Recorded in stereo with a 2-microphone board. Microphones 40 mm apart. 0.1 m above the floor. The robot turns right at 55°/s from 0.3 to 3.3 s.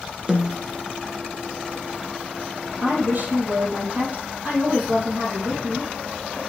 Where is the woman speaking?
65° right (ahead or behind), 2.5 m; by 6.4 s 45° right (ahead or behind), 2.5 m.